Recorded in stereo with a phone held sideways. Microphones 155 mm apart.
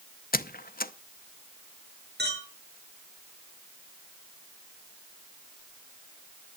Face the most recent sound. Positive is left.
turn(degrees=-85)